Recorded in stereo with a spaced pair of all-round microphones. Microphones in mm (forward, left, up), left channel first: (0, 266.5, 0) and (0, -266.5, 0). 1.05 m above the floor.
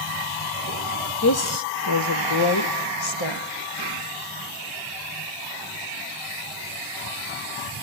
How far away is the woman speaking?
About 0.8 m.